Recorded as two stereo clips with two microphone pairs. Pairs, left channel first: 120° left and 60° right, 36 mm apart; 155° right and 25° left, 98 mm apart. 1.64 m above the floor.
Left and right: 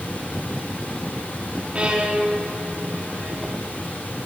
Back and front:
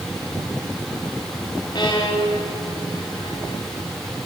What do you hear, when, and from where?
1.8 s a violin: 115° right, 3.5 m